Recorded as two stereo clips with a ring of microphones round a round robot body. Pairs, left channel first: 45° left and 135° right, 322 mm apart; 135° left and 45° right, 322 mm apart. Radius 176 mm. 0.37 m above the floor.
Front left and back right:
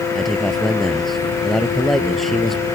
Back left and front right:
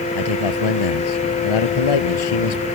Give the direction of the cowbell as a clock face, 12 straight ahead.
I don't hear a cowbell.